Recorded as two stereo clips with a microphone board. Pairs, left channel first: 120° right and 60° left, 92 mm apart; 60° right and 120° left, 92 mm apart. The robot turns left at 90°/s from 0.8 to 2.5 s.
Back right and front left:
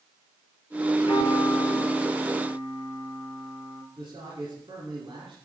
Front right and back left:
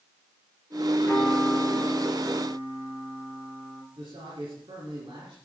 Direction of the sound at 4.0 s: 90° left.